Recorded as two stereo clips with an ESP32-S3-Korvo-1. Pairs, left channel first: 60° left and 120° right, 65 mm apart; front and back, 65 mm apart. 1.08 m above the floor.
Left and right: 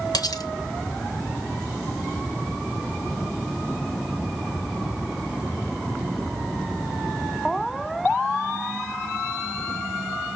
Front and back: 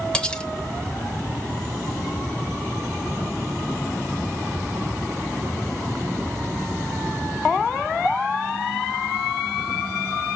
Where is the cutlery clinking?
75° left, 1.0 m.